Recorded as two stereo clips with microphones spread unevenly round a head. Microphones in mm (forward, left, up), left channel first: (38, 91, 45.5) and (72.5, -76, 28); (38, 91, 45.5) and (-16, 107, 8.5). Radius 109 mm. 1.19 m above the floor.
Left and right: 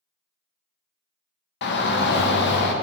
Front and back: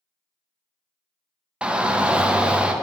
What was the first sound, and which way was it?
A shout, 110° left.